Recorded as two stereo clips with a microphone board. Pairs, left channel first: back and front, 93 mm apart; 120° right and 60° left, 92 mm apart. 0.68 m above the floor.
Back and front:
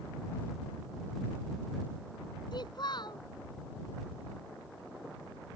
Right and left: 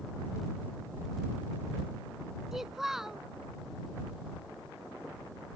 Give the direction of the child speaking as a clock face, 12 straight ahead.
7 o'clock.